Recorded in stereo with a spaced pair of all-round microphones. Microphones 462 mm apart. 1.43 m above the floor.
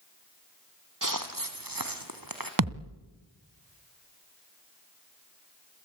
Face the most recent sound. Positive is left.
turn(degrees=-45)  # may be behind; listen again after turning